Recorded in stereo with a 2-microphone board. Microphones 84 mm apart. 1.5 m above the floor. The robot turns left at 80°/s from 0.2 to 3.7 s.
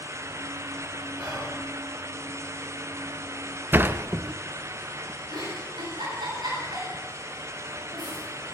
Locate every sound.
1.2 s whispering: 20° right (ahead or behind), 7 m; by 1.5 s 5° left (ahead or behind), 7 m
3.7 s a sliding door: 25° right (ahead or behind), 0.5 m
5.3 s a giggle: 65° right (ahead or behind), 9 m